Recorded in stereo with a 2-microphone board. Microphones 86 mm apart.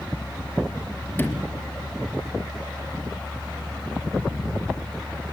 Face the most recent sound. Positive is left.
turn(degrees=25)  # may be behind; listen again after turning